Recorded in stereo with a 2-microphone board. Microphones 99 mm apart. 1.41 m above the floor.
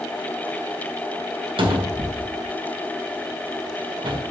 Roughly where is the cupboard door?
Right.